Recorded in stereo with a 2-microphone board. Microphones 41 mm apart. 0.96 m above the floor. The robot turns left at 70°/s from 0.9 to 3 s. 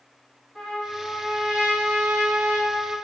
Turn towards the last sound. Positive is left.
turn(degrees=-130)